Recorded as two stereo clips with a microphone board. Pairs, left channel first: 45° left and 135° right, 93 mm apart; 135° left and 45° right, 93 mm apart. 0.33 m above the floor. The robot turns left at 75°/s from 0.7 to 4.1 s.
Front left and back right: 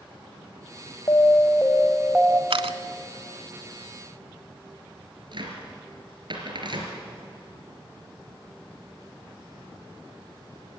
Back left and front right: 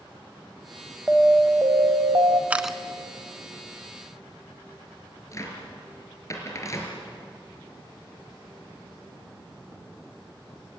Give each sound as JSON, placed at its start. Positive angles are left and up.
{"t": 1.1, "sound": "an alarm", "azimuth_deg": 30, "distance_m": 1.5}
{"t": 2.5, "sound": "a camera shutter", "azimuth_deg": -120, "distance_m": 0.8}
{"t": 5.3, "sound": "a cupboard door", "azimuth_deg": -170, "distance_m": 4.0}